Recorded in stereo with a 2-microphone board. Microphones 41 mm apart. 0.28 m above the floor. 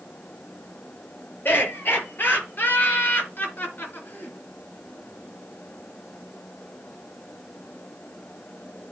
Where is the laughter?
50° left (ahead or behind), 4.5 m; by 4.4 s 45° left (ahead or behind), 3 m.